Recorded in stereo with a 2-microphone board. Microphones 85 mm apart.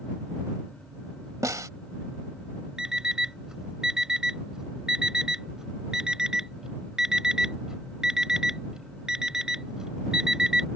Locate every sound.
1.4 s a snare drum: 40° right (ahead or behind)
2.8 s an alarm clock: 10° right (ahead or behind)